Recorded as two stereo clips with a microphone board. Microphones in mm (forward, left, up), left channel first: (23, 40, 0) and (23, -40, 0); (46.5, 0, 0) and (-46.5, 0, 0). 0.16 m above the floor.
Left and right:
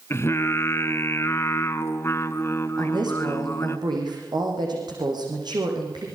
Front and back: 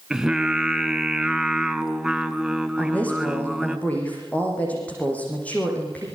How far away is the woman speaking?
About 7 m.